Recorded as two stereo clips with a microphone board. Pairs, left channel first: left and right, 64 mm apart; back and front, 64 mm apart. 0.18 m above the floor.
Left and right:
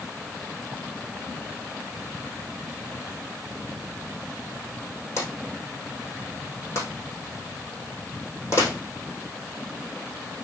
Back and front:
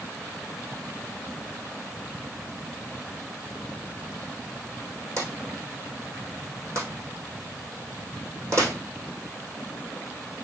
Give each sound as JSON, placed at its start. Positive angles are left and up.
{"t": 5.2, "sound": "a drawer", "azimuth_deg": 40, "distance_m": 3.0}